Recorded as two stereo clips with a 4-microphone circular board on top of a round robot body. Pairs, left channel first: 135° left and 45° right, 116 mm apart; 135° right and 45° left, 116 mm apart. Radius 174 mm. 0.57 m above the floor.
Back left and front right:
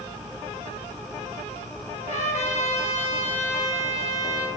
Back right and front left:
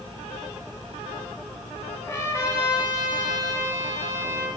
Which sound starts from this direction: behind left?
A trumpet, at 2.0 s.